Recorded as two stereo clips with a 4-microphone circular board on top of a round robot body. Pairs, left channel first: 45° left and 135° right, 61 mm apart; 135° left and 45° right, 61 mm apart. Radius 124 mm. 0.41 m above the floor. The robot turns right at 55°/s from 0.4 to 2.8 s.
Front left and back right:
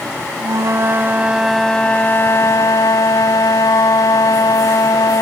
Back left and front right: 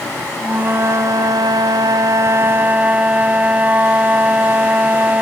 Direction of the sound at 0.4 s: 110° right.